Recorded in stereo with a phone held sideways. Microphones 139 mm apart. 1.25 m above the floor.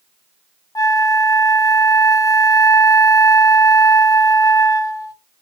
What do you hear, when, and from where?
0.8 s a flute: 25° left (ahead or behind), 0.8 m